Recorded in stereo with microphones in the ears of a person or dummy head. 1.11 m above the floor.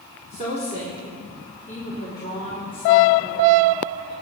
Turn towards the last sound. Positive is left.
turn(degrees=40)  # may be behind; listen again after turning